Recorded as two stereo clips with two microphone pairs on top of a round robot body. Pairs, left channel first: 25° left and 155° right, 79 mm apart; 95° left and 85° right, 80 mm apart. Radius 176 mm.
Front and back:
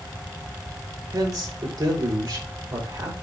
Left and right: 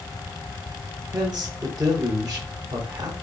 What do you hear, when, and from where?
1.1 s a man speaking: 125° right, 4 m